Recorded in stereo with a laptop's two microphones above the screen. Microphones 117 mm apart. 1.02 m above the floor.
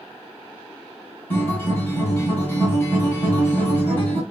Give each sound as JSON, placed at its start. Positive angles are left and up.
{"t": 1.3, "sound": "a guitar", "side_deg": 15, "distance_m": 2.5}